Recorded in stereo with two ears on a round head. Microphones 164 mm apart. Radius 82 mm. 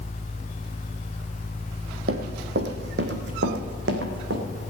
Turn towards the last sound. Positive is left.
turn(degrees=-75)  # may be behind; listen again after turning